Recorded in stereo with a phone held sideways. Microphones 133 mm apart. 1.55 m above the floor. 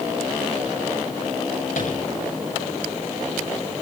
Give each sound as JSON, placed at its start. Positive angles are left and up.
{"t": 1.8, "sound": "tapping", "side_deg": 80, "distance_m": 8.0}